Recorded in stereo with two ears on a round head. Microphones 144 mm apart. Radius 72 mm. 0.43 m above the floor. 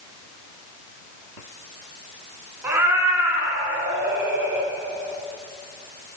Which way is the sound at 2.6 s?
15° right (ahead or behind).